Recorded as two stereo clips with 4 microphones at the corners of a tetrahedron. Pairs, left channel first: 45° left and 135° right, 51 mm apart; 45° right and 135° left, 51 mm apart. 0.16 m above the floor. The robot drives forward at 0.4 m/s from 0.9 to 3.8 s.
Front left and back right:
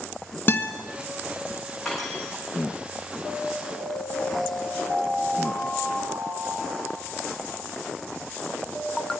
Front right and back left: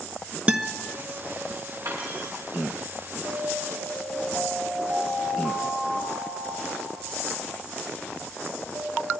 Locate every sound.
0.5 s a guitar: 80° left, 1.7 m
1.9 s cutlery clinking: 135° left, 6.5 m; by 2.3 s 140° left, 7 m
3.2 s an alarm: 170° left, 8 m